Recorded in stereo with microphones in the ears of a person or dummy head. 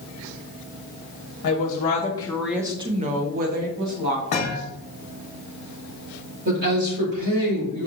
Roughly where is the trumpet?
No trumpet in this recording.